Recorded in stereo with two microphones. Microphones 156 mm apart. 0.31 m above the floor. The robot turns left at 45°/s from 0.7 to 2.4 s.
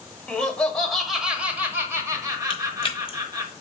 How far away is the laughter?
About 0.9 m.